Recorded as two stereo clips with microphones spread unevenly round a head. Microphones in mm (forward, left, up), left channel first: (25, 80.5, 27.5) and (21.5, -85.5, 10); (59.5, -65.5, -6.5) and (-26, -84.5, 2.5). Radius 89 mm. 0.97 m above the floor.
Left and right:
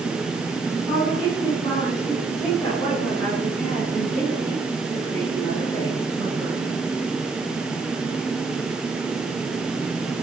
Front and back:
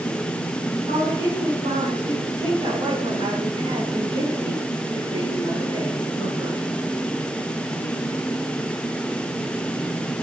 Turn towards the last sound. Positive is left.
turn(degrees=170)